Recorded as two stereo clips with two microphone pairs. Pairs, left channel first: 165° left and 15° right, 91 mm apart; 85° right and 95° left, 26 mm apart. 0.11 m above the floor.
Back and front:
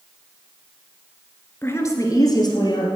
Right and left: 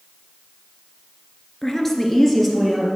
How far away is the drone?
I don't hear a drone.